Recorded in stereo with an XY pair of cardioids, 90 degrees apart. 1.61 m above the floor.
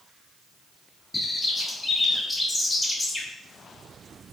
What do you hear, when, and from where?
1.1 s a bird: 15° left, 1.5 m